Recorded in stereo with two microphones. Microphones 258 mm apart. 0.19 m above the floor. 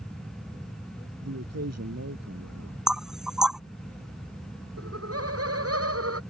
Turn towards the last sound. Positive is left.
turn(degrees=-65)  # may be behind; listen again after turning